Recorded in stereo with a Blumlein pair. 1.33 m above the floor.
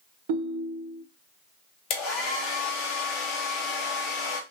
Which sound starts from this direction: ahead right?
A ringtone, at 0.3 s.